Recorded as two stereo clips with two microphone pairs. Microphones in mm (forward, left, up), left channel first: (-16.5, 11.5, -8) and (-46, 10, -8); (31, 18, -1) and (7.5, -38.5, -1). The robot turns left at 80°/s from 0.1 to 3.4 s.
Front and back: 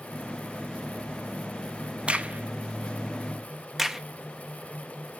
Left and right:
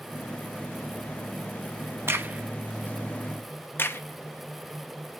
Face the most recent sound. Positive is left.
turn(degrees=110)